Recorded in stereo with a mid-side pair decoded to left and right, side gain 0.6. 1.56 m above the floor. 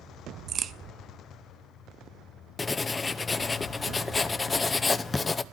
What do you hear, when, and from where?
0.5 s a crack: 45° right, 0.6 m
2.6 s writing: 20° left, 0.7 m